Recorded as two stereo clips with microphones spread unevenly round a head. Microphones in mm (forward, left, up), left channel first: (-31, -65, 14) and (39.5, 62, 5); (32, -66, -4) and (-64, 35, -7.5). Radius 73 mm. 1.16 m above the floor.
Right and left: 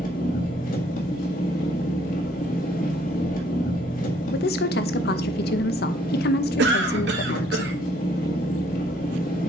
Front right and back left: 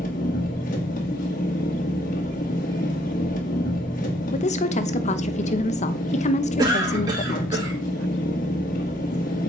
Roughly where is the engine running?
Right.